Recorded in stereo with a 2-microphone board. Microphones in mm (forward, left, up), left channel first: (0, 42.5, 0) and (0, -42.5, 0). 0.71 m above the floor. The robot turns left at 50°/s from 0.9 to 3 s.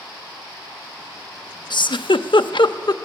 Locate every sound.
1.7 s a giggle: 60° left (ahead or behind), 0.7 m; by 3.0 s 50° left (ahead or behind), 0.7 m